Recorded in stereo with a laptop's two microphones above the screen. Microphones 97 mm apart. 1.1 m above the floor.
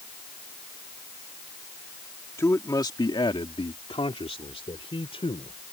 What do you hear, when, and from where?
2.4 s a man speaking: 30° left (ahead or behind); by 5.6 s 65° left (ahead or behind)